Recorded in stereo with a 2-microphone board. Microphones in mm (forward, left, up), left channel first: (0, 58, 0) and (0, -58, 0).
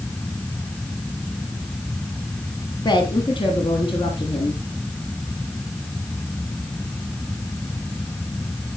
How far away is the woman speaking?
About 2 m.